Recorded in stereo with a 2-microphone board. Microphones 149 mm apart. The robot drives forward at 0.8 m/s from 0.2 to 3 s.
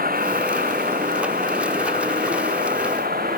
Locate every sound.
0.0 s a vehicle: 70° right (ahead or behind); by 3.4 s 75° right (ahead or behind)